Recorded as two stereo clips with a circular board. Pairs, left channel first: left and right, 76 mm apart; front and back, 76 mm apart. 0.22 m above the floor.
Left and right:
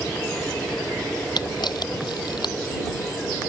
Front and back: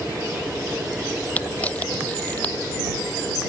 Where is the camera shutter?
70° left.